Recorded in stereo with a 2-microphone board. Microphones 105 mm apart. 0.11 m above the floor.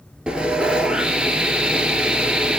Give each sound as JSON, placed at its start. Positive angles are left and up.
{"t": 0.3, "sound": "sawing", "side_deg": -10, "distance_m": 0.8}